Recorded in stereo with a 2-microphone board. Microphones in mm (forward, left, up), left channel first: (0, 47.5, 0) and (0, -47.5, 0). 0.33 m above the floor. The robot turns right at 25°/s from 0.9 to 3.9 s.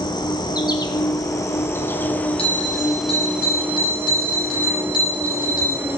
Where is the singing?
No singing in this recording.